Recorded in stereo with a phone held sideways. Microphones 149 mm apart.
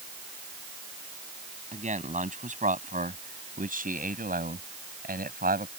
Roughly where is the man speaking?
Right.